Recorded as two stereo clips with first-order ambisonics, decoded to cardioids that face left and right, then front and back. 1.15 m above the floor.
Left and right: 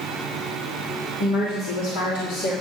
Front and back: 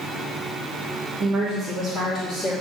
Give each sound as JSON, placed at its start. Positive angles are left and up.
{"t": 1.2, "sound": "a woman speaking", "azimuth_deg": 110, "distance_m": 3.0}